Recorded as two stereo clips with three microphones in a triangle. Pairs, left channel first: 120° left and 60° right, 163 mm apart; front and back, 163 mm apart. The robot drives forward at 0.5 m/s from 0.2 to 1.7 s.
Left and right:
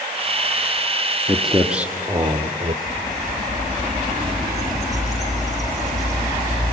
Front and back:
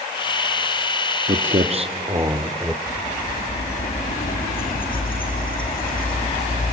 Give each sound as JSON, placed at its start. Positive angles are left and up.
{"t": 1.3, "sound": "footsteps", "azimuth_deg": -150, "distance_m": 1.5}
{"t": 2.9, "sound": "a bird", "azimuth_deg": 30, "distance_m": 4.5}